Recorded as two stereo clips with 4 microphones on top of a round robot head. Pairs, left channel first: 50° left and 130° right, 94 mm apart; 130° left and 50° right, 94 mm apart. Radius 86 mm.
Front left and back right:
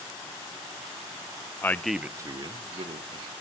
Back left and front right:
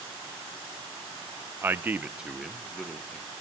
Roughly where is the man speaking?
Ahead.